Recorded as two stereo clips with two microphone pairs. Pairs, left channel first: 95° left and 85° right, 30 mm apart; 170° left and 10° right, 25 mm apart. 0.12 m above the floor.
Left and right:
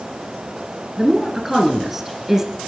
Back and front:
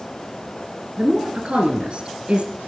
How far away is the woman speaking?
About 2 m.